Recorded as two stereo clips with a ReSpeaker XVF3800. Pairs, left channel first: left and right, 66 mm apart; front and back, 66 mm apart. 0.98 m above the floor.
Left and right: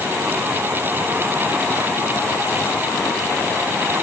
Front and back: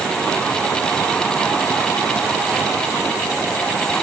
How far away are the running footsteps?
I don't hear running footsteps.